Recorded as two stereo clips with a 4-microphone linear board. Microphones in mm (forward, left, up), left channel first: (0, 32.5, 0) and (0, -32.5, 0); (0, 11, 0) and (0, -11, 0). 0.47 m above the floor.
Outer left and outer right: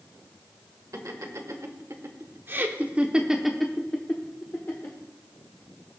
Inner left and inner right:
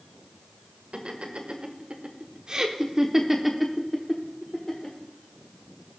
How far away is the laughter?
About 1.5 m.